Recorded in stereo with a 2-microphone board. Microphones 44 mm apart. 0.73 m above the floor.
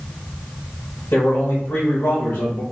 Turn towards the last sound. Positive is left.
turn(degrees=45)  # may be behind; listen again after turning